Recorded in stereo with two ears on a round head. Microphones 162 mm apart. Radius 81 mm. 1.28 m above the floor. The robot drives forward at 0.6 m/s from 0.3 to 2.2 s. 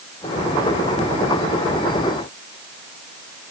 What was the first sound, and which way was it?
Only background noise.